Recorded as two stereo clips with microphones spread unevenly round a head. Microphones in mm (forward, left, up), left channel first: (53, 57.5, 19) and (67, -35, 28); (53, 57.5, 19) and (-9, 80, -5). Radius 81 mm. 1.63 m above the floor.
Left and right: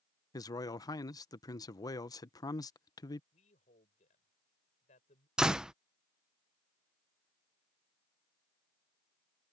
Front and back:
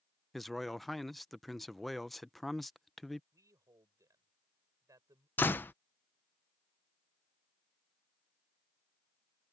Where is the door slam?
5° right.